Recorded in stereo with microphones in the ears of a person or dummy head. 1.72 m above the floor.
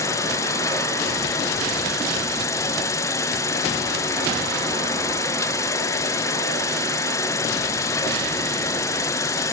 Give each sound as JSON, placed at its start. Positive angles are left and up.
{"t": 0.0, "sound": "an insect", "side_deg": 15, "distance_m": 1.2}